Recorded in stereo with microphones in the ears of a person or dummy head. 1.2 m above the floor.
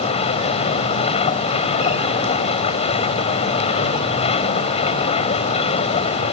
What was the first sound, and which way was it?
A machine running, 30° left (ahead or behind).